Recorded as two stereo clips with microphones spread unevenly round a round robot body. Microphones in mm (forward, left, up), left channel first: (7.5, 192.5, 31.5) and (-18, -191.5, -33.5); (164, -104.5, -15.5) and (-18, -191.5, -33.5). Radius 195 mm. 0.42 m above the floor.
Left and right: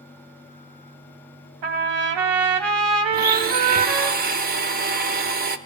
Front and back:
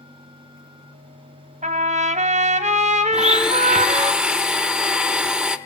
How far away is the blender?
About 0.7 m.